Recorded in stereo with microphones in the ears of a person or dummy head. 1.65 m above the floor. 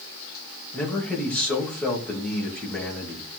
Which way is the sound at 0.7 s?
Centre (ahead or behind).